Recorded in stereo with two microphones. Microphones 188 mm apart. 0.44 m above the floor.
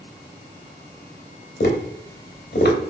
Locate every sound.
1.6 s tapping: 60° left (ahead or behind), 0.6 m